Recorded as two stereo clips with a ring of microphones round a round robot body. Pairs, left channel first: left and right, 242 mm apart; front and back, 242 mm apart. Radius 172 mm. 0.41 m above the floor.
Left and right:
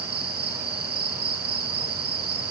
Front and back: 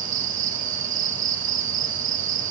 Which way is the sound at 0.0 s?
140° right.